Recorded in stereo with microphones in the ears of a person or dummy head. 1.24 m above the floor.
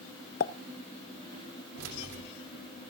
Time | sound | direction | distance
0.4 | a pop | 45° left (ahead or behind) | 0.7 m
1.8 | keys jangling | 80° right | 3 m